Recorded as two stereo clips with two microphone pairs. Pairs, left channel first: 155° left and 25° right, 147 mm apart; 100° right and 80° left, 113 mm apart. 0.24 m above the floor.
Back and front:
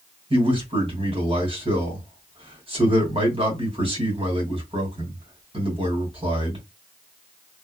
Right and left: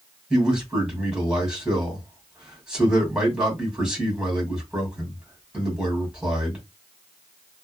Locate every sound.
0.3 s a man speaking: straight ahead, 2.0 m